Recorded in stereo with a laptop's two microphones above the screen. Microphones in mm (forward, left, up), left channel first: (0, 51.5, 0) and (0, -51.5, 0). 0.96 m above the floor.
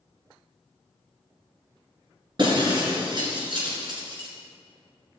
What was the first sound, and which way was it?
Breaking glass, 50° right (ahead or behind).